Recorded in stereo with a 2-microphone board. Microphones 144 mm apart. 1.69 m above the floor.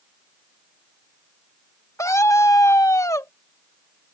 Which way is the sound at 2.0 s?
20° left (ahead or behind).